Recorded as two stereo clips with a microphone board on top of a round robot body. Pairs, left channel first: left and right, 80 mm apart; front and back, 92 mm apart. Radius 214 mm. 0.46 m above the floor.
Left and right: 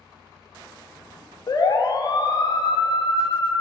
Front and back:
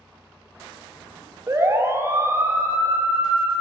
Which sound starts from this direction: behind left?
A siren, at 1.5 s.